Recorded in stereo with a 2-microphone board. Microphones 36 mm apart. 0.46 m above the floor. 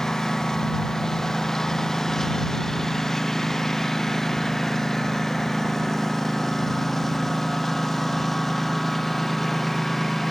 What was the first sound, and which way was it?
A lawn mower, 10° left (ahead or behind).